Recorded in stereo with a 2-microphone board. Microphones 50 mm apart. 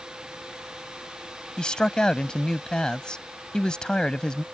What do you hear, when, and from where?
1.6 s a man speaking: 15° left (ahead or behind)